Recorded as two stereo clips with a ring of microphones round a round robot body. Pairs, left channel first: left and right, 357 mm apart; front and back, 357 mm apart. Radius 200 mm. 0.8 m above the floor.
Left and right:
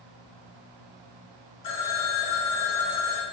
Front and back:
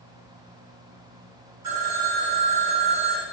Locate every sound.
1.6 s a phone ringing: 130° left, 0.9 m